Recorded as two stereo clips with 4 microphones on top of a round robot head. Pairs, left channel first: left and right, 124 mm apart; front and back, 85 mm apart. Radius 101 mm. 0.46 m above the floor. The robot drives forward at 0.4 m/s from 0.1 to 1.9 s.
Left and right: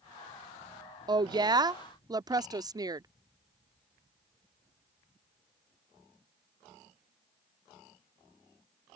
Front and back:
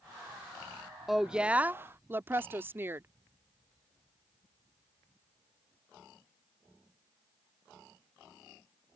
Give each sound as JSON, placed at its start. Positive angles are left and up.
{"t": 1.1, "sound": "a woman speaking", "azimuth_deg": -95}